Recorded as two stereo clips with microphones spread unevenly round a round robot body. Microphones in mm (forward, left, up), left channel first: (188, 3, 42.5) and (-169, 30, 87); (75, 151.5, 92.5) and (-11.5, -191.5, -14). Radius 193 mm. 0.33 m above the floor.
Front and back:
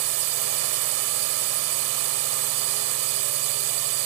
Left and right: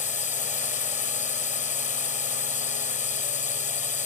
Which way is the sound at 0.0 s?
155° left.